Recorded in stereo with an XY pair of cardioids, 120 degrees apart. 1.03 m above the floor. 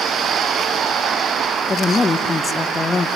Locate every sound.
1.7 s a woman speaking: 25° left, 0.6 m